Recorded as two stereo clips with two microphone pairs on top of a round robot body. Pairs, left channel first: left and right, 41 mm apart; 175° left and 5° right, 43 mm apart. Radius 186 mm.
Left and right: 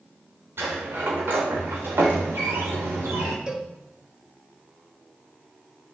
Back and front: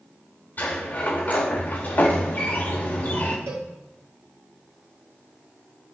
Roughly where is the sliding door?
Behind right.